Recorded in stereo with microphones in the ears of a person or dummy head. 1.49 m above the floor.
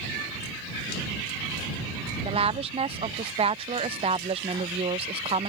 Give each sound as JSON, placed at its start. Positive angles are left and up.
{"t": 2.2, "sound": "a woman speaking", "side_deg": -25}